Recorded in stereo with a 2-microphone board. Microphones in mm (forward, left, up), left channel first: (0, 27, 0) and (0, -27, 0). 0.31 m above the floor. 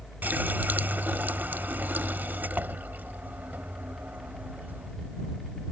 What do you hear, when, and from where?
0.2 s a running tap: 35° right (ahead or behind)